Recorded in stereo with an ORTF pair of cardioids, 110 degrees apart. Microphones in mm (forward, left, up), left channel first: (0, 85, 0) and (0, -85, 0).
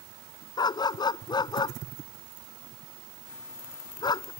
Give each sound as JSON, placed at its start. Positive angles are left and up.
{"t": 0.6, "sound": "a dog barking", "azimuth_deg": 25}